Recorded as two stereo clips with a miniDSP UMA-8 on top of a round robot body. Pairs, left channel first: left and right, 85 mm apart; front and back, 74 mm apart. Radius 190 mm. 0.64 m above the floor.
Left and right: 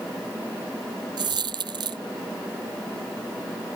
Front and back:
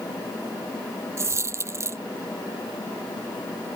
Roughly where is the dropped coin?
Behind right.